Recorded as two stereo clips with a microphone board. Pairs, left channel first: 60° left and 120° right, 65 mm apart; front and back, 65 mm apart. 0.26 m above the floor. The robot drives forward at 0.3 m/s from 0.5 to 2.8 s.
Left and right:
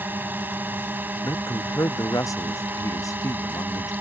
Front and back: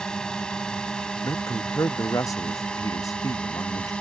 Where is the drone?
75° right; by 4.0 s 70° right.